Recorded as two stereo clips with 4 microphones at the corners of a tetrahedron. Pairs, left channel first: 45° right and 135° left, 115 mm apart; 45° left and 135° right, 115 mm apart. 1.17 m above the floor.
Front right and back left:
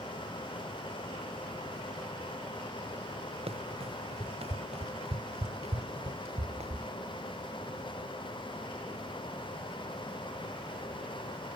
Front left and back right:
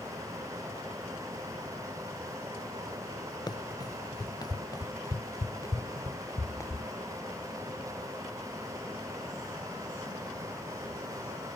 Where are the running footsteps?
100° left; by 6.9 s 110° left.